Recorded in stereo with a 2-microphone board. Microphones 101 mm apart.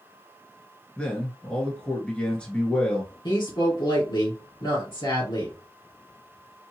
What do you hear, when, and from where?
1.0 s a man speaking: 10° left (ahead or behind), 1.3 m
3.2 s a woman speaking: 50° left (ahead or behind), 1.9 m